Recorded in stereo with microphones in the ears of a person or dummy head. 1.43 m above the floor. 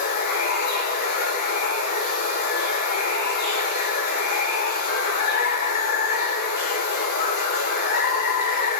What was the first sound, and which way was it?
Running water, 60° left (ahead or behind).